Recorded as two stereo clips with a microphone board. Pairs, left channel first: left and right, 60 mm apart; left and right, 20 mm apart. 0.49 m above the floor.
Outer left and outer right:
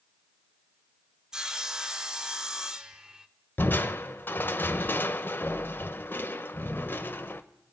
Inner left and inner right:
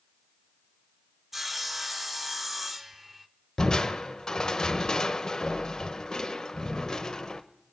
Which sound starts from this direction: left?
Crushing, at 3.6 s.